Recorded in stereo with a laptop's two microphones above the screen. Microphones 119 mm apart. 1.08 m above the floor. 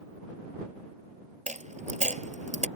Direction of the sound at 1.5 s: 75° right (ahead or behind).